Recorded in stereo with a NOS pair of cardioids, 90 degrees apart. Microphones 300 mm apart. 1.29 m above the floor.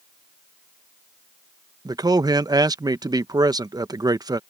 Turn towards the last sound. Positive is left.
turn(degrees=-10)